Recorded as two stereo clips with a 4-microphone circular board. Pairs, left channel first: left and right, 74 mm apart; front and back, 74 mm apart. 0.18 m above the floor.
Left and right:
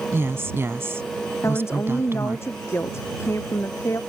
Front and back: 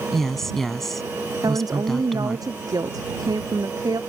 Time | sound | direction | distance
0.1 | a woman speaking | 85° right | ?
1.4 | a woman speaking | 145° left | ?